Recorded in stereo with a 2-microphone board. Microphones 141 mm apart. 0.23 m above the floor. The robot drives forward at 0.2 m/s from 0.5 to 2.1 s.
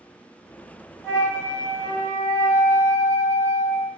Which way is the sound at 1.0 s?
20° left (ahead or behind).